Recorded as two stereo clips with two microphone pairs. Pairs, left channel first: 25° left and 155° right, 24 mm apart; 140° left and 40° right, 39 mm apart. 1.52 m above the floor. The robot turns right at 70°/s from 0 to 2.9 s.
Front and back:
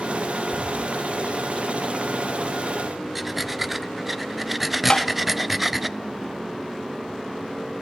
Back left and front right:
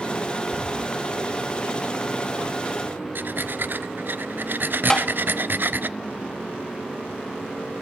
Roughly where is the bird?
Ahead left.